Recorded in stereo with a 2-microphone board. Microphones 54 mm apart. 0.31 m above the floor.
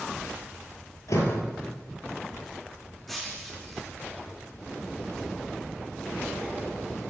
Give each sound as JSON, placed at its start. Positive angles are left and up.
{"t": 1.1, "sound": "a door slam", "side_deg": 70, "distance_m": 6.5}
{"t": 3.1, "sound": "breaking glass", "side_deg": 5, "distance_m": 6.5}